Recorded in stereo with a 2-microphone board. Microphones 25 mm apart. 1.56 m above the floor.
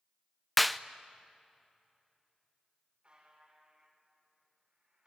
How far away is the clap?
About 0.5 m.